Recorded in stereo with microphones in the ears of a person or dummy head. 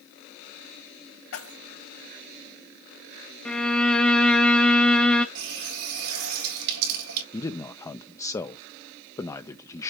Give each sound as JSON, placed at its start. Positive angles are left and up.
{"t": 1.3, "sound": "keys jangling", "side_deg": 80, "distance_m": 3.5}
{"t": 3.5, "sound": "a violin", "side_deg": 10, "distance_m": 1.3}
{"t": 5.3, "sound": "a running tap", "side_deg": -75, "distance_m": 2.5}
{"t": 7.3, "sound": "a man speaking", "side_deg": 15, "distance_m": 0.9}